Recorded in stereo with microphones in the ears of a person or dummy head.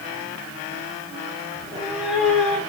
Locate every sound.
1.6 s a cat meowing: 15° right (ahead or behind), 2.5 m; by 2.6 s 10° left (ahead or behind), 2.5 m